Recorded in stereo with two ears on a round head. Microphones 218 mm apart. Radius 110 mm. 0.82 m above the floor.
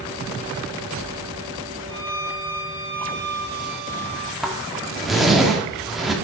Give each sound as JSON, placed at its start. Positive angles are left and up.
{"t": 1.9, "sound": "a violin", "side_deg": -40, "distance_m": 2.5}
{"t": 4.4, "sound": "a zipper", "side_deg": 0, "distance_m": 1.5}